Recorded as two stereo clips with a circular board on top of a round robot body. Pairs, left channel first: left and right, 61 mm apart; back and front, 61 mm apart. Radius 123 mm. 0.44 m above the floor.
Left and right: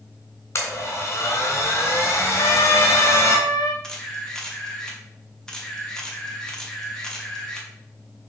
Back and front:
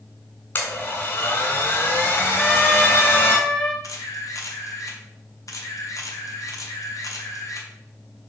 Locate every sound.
0.6 s a blender: 130° left, 3 m
2.4 s a trumpet: 95° left, 1.3 m
3.8 s a camera shutter: 170° left, 1.9 m